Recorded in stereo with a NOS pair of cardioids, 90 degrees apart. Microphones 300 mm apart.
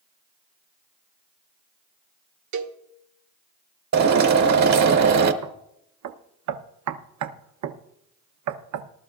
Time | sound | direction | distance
2.5 | a cowbell | 70° right | 1.1 m
3.9 | a drill | 65° right | 1.3 m
5.4 | knocking | 70° right | 0.8 m